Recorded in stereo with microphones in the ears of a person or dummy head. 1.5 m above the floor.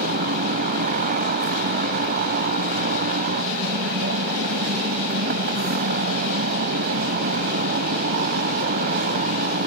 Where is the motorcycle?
45° right (ahead or behind).